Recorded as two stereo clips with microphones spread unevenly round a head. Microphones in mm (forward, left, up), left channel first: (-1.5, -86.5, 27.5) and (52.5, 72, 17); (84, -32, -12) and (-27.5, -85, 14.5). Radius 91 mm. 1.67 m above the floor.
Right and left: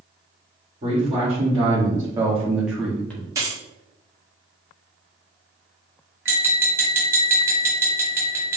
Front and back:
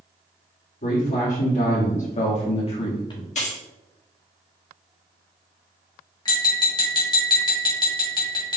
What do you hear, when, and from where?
0.8 s a man speaking: 15° left, 1.7 m; by 3.2 s 30° right, 0.9 m
3.4 s keys jangling: straight ahead, 1.4 m
6.2 s tapping: 5° left, 1.6 m